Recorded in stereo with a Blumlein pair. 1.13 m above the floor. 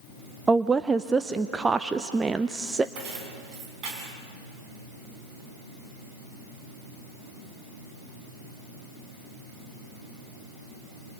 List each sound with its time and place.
0.5 s a woman speaking: 10° right, 0.6 m
3.0 s keys jangling: 35° right, 6 m